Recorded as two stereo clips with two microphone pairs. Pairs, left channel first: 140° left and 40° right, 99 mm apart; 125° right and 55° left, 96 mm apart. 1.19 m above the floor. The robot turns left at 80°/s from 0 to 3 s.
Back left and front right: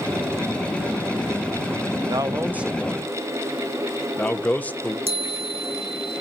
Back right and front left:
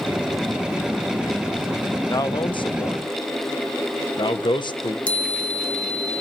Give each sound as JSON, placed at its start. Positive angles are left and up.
{"t": 2.1, "sound": "a man speaking", "azimuth_deg": -75, "distance_m": 0.9}
{"t": 5.1, "sound": "a chime", "azimuth_deg": -50, "distance_m": 1.4}